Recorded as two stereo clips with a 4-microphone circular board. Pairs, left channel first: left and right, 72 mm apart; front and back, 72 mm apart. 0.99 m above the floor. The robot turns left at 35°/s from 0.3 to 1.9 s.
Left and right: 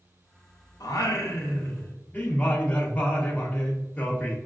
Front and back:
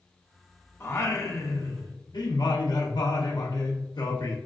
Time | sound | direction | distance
0.8 | singing | 60° left | 0.7 m